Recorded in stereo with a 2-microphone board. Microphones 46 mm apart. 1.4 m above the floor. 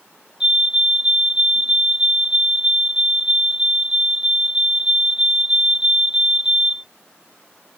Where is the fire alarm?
20° right (ahead or behind).